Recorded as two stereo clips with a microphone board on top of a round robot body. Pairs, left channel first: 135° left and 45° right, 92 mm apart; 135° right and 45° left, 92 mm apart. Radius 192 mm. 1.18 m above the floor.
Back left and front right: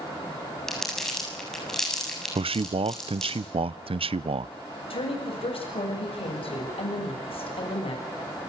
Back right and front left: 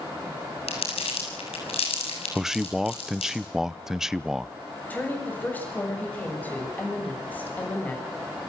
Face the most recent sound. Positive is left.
turn(degrees=155)